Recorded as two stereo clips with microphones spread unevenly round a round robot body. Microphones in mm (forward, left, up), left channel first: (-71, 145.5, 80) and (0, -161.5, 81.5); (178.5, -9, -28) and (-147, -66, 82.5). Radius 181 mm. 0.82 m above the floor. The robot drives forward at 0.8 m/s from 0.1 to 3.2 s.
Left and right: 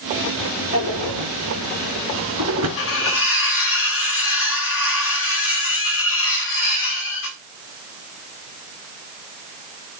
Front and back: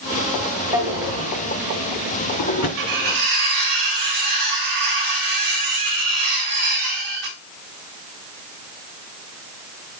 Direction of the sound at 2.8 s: 150° left.